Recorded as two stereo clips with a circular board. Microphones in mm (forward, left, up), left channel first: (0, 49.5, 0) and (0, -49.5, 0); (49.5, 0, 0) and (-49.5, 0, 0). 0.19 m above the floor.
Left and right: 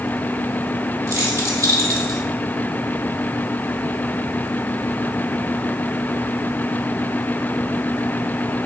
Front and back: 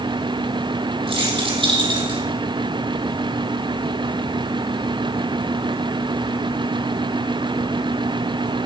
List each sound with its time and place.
1.1 s keys jangling: 150° right, 4.5 m; by 2.2 s 140° right, 4.5 m